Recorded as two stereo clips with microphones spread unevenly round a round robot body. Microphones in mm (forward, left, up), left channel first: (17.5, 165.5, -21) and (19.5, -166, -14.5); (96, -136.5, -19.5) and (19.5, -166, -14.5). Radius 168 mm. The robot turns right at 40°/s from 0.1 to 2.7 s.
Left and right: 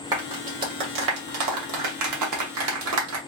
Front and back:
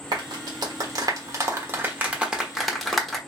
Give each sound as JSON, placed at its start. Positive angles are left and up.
{"t": 0.1, "sound": "a clap", "azimuth_deg": -170, "distance_m": 1.2}